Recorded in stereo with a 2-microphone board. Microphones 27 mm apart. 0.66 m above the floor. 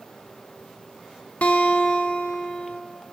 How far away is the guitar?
About 0.8 m.